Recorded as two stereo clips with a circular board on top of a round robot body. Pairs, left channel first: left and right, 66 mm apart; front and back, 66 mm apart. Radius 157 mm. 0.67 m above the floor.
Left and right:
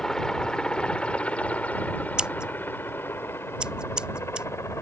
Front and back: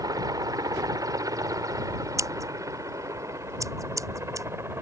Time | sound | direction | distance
0.0 | a helicopter | 170° left | ?
2.2 | scissors | 165° right | ?